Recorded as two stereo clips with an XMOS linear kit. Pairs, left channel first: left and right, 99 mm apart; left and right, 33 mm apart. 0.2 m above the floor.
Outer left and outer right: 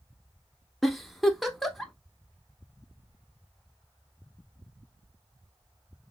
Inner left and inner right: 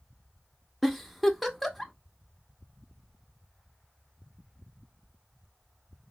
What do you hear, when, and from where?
0.8 s a giggle: centre (ahead or behind), 0.5 m